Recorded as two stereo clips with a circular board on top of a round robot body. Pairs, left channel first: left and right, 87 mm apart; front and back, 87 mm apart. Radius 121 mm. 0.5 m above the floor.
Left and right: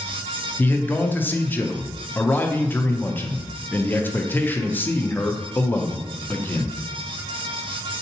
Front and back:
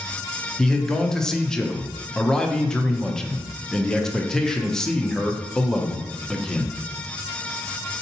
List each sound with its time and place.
0.6 s a man speaking: 75° left, 0.7 m